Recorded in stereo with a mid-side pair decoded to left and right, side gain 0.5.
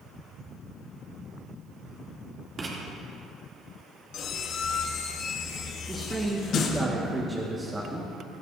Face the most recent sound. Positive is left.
turn(degrees=-20)